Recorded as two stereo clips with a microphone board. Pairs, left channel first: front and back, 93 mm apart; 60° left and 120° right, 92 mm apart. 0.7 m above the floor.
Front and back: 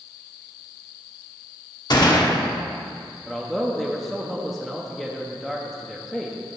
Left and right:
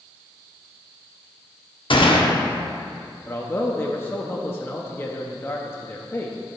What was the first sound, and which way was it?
A gunshot, 40° left.